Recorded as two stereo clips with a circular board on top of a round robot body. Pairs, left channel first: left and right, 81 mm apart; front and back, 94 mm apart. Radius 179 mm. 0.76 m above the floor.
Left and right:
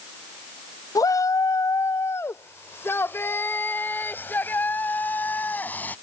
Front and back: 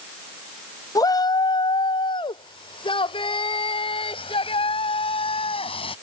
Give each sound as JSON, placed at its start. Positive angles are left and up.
{"t": 0.9, "sound": "a shout", "azimuth_deg": 50}